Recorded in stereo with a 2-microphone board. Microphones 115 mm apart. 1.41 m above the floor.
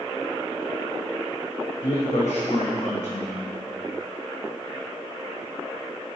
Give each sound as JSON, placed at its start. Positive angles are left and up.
{"t": 1.8, "sound": "a man speaking", "side_deg": 80, "distance_m": 1.0}